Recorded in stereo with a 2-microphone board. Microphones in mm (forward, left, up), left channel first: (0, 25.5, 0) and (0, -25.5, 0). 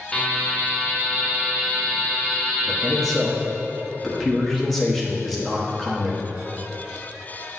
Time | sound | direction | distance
0.1 | a buzzer | 10° left (ahead or behind) | 1.3 m
2.7 | a man speaking | centre (ahead or behind) | 1.2 m